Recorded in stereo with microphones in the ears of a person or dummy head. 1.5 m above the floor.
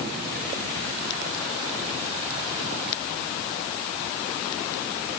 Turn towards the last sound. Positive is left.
No sound to turn to.